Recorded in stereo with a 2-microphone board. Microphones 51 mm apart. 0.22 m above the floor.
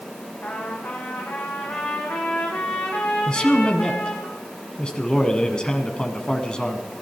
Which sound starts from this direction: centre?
A man speaking, at 3.3 s.